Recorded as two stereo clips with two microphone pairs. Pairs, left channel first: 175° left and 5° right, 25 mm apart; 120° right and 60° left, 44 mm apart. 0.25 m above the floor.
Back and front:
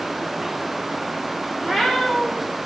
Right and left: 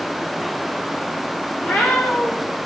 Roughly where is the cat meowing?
Right.